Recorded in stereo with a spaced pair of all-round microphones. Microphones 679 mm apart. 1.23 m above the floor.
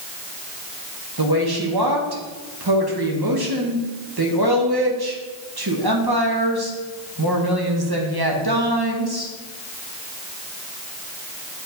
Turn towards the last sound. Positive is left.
turn(degrees=-35)  # may be behind; listen again after turning